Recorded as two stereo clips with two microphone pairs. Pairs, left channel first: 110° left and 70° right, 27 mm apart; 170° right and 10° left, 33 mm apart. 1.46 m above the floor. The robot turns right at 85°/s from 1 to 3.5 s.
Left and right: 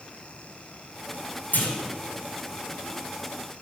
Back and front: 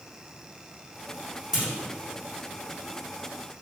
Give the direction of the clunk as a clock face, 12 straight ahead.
9 o'clock.